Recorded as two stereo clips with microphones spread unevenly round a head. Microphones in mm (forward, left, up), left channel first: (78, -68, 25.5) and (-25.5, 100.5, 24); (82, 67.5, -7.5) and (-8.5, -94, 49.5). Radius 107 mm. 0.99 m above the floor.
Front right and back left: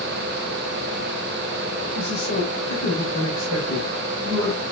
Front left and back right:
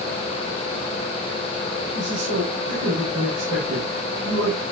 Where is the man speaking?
120° right, 5 m.